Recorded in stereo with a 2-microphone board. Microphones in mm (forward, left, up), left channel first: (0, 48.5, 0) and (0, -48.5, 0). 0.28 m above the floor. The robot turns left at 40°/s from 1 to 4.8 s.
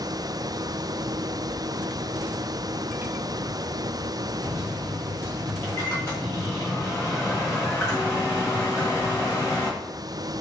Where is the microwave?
30° left (ahead or behind), 1.3 m; by 9.7 s 25° left (ahead or behind), 1.3 m.